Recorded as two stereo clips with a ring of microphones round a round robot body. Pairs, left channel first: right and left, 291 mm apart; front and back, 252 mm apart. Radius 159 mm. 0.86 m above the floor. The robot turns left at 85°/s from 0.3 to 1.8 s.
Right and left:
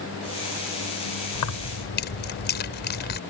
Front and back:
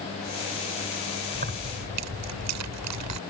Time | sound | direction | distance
1.4 | keys jangling | 110° right | ?